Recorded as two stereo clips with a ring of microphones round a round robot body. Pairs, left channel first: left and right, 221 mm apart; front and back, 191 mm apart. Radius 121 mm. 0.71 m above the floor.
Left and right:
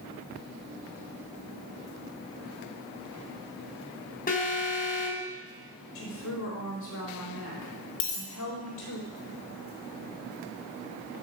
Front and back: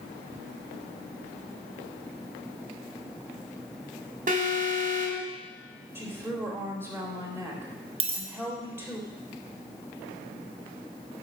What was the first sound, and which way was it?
An alarm, 140° left.